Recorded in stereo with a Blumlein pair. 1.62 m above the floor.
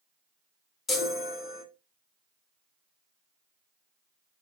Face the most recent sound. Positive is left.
turn(degrees=15)